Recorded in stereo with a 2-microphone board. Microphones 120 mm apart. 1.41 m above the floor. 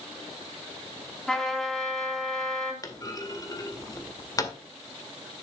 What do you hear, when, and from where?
1.3 s a trumpet: 5° left (ahead or behind), 3.5 m
2.8 s a clunk: 30° left (ahead or behind), 1.8 m